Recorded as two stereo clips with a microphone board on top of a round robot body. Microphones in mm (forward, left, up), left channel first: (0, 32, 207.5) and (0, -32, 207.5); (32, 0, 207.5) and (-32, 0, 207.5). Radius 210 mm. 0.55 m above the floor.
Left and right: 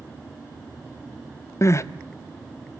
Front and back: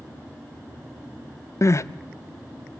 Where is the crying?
45° left, 0.6 m.